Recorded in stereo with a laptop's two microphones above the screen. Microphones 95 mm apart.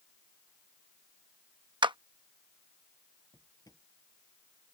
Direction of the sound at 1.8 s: 55° right (ahead or behind).